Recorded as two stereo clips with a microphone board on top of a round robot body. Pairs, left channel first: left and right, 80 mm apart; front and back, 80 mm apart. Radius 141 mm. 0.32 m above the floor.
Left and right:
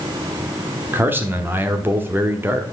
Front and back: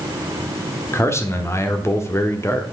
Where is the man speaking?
40° right, 1.3 m.